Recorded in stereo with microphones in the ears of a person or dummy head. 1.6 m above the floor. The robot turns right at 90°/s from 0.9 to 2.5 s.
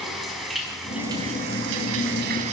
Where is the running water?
Straight behind, 4.5 m; by 2.5 s 35° right, 4.5 m.